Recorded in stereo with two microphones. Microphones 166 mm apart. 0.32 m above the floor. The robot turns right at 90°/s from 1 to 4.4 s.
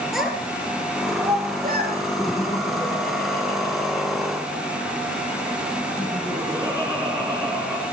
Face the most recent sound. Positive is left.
turn(degrees=-165)